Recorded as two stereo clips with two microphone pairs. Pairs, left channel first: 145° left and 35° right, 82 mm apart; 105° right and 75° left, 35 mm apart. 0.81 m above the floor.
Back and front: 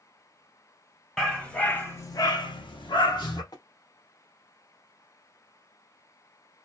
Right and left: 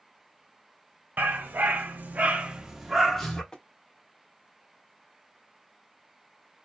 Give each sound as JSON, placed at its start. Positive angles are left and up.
{"t": 1.2, "sound": "a dog barking", "azimuth_deg": 65, "distance_m": 0.9}
{"t": 3.5, "sound": "tapping", "azimuth_deg": 180, "distance_m": 0.5}